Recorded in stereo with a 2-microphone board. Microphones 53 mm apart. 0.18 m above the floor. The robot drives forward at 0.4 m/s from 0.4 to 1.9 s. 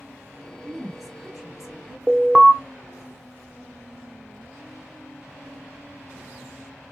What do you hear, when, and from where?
0.6 s a woman speaking: 5° right (ahead or behind), 2.5 m
2.1 s an alarm: 20° right (ahead or behind), 0.9 m